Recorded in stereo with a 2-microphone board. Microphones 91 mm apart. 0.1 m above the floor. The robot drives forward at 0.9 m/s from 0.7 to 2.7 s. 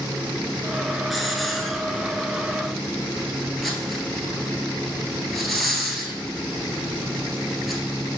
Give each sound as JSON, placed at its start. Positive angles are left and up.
{"t": 1.1, "sound": "a hiss", "side_deg": 0, "distance_m": 1.0}